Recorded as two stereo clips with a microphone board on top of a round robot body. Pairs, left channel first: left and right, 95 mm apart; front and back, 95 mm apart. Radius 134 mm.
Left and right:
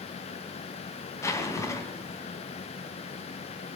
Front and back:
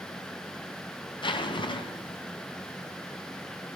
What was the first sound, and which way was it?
A zipper, 30° left.